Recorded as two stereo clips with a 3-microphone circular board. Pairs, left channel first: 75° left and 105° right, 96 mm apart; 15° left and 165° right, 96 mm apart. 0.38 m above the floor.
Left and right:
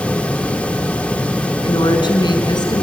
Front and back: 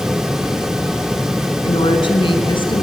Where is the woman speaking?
40° left, 3 m; by 2.8 s 35° left, 4 m.